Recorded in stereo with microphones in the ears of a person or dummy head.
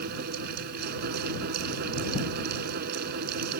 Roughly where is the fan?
Right.